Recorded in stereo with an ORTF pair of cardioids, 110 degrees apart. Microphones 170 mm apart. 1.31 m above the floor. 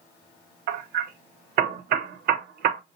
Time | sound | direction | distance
0.7 | hammering | 65° right | 1.4 m